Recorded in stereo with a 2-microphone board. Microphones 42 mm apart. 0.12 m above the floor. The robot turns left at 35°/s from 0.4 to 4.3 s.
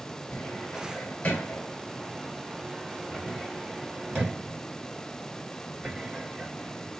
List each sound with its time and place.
0.3 s a cupboard door: 45° left (ahead or behind), 2.5 m; by 6.9 s 25° right (ahead or behind), 2.5 m